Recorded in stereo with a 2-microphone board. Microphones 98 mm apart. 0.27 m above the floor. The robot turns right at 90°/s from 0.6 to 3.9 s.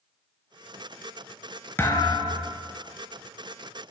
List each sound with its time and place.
1.8 s a thud: 20° left, 0.7 m; by 2.6 s 95° left, 0.7 m